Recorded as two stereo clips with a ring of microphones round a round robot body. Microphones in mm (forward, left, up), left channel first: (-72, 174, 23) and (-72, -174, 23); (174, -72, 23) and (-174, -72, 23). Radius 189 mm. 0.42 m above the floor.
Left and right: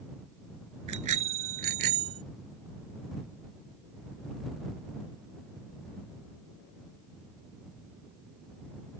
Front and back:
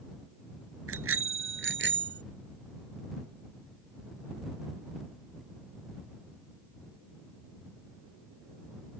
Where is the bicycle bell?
130° right; by 2.2 s 120° right.